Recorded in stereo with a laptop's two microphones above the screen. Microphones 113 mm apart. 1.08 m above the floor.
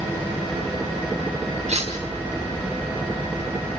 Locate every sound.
1.7 s cutlery clinking: 80° right, 4 m